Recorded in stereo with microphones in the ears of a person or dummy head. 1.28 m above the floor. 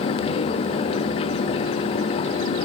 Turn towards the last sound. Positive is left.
No sound to turn to.